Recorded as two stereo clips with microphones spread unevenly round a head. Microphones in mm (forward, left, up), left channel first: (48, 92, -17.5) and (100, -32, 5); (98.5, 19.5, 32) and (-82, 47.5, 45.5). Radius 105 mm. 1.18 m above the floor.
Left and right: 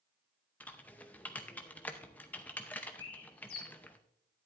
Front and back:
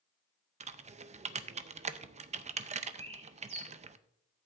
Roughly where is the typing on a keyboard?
Behind.